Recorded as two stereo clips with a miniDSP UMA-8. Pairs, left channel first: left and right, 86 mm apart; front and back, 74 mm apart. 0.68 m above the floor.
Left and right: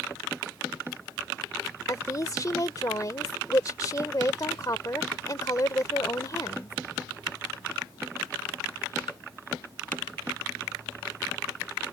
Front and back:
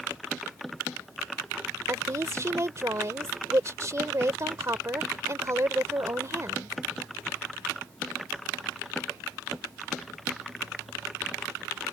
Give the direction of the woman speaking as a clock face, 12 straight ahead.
7 o'clock.